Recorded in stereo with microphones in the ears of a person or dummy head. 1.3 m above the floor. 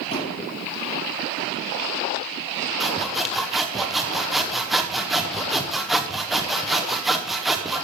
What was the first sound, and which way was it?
A thud, 25° left (ahead or behind).